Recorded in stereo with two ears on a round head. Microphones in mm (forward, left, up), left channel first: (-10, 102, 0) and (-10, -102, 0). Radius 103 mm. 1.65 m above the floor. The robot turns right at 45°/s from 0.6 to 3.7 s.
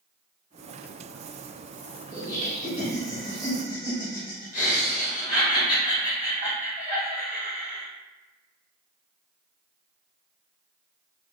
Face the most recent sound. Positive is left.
turn(degrees=140)